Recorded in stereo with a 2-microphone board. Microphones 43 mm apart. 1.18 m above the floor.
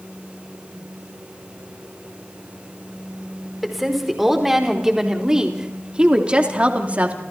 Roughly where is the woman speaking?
Centre.